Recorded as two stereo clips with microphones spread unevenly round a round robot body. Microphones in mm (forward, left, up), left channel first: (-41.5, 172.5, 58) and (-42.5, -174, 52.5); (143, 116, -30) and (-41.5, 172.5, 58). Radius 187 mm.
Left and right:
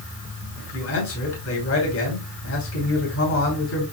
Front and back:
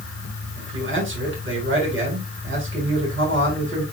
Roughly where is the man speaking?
Behind left.